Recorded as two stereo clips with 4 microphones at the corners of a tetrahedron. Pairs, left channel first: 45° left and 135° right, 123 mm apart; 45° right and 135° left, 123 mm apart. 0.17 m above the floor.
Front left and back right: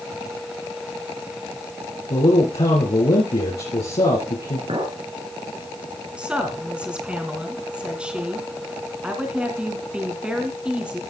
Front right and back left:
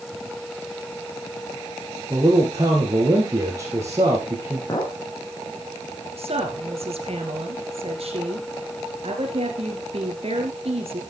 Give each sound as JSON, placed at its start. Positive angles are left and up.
{"t": 2.1, "sound": "a man speaking", "azimuth_deg": 75, "distance_m": 4.0}
{"t": 4.7, "sound": "a clink", "azimuth_deg": -105, "distance_m": 3.0}
{"t": 6.2, "sound": "a woman speaking", "azimuth_deg": 145, "distance_m": 2.5}